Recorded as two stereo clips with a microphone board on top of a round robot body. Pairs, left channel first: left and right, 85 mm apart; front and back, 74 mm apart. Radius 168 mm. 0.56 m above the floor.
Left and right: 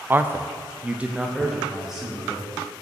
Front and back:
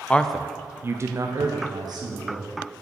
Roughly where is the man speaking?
Ahead right.